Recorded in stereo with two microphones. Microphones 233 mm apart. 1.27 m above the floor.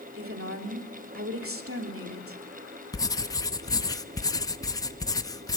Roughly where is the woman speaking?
Right.